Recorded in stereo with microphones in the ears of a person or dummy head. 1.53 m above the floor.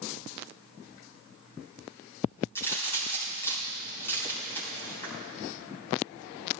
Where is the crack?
15° left (ahead or behind), 4.5 m.